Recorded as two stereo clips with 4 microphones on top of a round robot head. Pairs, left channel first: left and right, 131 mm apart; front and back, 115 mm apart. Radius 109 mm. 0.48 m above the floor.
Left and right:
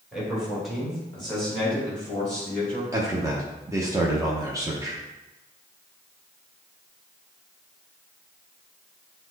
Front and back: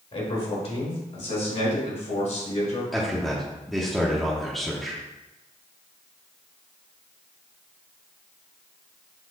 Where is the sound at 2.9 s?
85° right, 0.8 m.